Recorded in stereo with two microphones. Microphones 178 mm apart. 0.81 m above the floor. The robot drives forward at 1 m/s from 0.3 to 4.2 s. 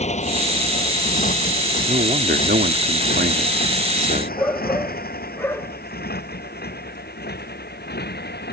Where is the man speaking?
45° right (ahead or behind).